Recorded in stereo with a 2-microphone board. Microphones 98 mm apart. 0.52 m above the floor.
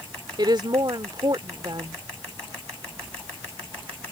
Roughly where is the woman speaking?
Right.